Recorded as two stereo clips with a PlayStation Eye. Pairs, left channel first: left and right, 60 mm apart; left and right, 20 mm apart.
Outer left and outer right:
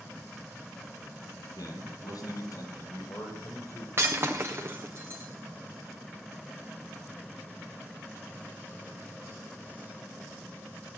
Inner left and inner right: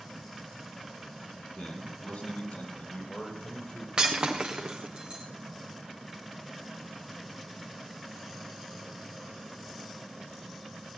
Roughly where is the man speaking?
Left.